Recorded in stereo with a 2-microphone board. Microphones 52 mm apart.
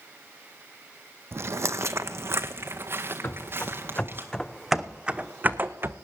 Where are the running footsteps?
40° left (ahead or behind), 1.3 m; by 5.9 s 50° right (ahead or behind), 0.9 m.